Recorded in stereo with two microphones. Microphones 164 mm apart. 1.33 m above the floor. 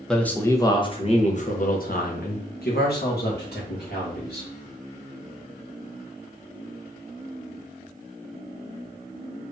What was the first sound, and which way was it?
A man speaking, 5° left (ahead or behind).